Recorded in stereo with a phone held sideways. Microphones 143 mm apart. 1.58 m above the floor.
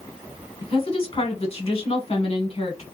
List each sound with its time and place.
0.6 s a woman speaking: 45° left (ahead or behind), 1.3 m